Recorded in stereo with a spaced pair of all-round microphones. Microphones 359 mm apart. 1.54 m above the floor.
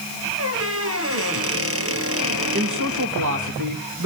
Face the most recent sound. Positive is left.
turn(degrees=-55)  # may be behind; listen again after turning